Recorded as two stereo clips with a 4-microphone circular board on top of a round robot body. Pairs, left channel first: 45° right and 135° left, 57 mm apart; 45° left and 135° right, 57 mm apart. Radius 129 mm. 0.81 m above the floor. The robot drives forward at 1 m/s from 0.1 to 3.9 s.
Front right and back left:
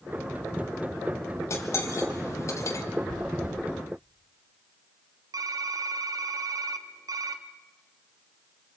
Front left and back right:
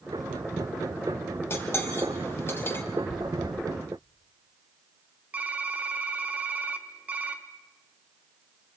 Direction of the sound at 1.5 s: 5° right.